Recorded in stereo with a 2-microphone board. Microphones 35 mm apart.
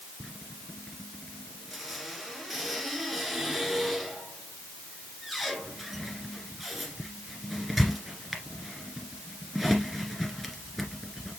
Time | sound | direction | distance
0.2 | a squeak | 5° right (ahead or behind) | 1.6 m